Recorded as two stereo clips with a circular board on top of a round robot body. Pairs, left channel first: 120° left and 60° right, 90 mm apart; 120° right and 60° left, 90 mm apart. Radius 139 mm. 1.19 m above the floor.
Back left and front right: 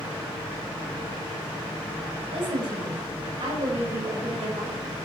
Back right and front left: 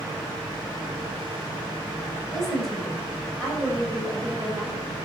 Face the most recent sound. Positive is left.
turn(degrees=-10)